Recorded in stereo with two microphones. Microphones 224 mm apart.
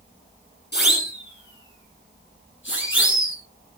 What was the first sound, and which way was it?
A siren, 50° left (ahead or behind).